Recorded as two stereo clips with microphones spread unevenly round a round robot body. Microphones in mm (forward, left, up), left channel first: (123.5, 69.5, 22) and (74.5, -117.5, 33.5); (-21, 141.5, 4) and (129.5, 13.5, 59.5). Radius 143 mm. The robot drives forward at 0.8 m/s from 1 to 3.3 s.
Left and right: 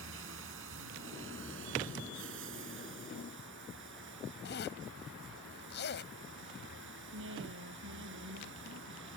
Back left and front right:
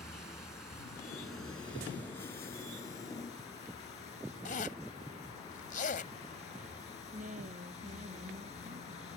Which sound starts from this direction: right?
A woman speaking, at 7.1 s.